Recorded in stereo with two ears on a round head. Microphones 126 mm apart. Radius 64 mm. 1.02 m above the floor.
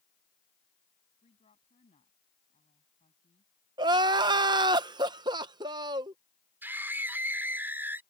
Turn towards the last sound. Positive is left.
turn(degrees=-15)  # may be behind; listen again after turning